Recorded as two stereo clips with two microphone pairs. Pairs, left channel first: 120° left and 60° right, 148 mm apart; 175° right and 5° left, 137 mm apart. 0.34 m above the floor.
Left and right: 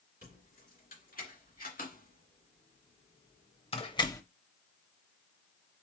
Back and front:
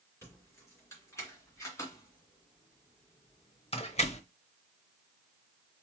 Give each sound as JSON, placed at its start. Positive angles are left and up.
{"t": 0.2, "sound": "keys jangling", "azimuth_deg": 115, "distance_m": 3.0}